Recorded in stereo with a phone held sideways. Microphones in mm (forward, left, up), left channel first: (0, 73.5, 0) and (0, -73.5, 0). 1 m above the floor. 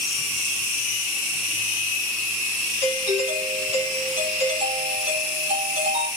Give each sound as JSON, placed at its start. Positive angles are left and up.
{"t": 2.8, "sound": "a doorbell", "side_deg": -50, "distance_m": 2.5}